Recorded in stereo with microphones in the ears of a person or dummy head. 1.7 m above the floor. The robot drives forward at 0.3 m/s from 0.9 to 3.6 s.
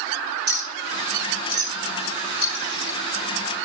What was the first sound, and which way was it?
A clink, 55° right (ahead or behind).